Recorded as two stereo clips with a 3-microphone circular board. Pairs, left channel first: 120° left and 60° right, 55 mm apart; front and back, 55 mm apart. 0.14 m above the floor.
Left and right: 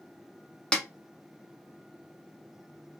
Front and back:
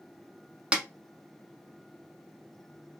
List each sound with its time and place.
0.7 s a snare drum: 155° left, 0.9 m